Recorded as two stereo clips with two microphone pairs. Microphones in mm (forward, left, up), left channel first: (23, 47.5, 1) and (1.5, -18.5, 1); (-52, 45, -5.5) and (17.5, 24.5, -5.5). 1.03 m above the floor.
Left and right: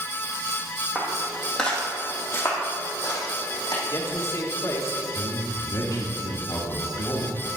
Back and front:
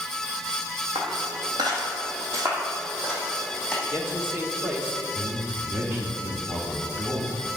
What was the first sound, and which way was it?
Footsteps, 25° right.